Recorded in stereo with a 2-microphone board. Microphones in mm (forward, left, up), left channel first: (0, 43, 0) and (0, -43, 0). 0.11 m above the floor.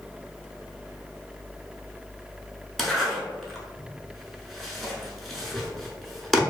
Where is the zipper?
Centre (ahead or behind), 0.6 m.